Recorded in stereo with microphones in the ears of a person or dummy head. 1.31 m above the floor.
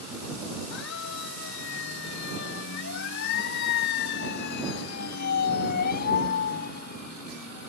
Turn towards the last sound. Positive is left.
turn(degrees=45)  # may be behind; listen again after turning